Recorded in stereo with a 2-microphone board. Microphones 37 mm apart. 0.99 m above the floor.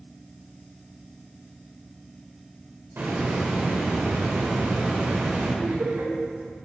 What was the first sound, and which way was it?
A hiss, 65° right (ahead or behind).